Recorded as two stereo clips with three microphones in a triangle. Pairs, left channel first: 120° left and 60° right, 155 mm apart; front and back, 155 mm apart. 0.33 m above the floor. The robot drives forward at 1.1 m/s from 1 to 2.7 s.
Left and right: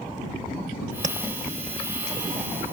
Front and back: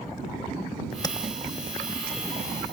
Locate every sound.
1.0 s tapping: 55° right; by 1.2 s 75° right